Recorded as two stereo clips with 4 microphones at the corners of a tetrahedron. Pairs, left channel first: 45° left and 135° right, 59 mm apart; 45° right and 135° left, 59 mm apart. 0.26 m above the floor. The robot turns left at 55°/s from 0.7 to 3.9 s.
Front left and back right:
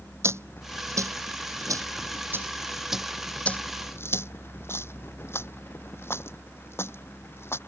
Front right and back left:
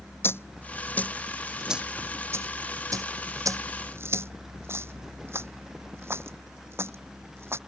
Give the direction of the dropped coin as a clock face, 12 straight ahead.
3 o'clock.